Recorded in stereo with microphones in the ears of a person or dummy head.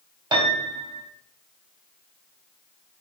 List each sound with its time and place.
0.3 s a piano: 25° right (ahead or behind), 2.5 m